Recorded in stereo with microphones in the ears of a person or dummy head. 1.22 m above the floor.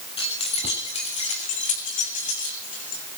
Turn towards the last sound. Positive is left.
turn(degrees=40)  # may be behind; listen again after turning